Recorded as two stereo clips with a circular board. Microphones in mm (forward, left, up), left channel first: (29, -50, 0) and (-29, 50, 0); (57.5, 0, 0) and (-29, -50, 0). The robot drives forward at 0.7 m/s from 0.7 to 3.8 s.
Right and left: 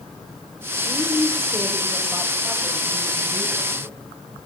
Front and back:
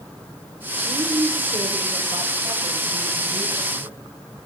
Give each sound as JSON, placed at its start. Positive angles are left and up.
{"t": 0.8, "sound": "a woman speaking", "azimuth_deg": -150, "distance_m": 1.2}